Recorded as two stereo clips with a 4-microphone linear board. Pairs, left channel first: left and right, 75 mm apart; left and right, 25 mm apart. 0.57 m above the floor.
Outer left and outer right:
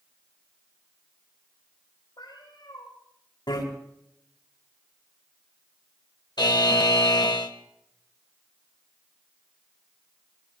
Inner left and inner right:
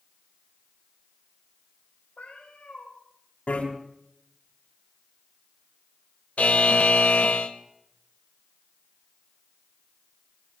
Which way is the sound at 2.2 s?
80° left.